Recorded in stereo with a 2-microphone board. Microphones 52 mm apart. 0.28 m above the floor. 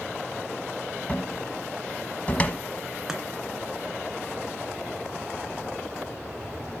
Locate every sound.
1.1 s a cupboard door: 30° left (ahead or behind), 1.1 m
3.1 s chopping: 10° right (ahead or behind), 2.5 m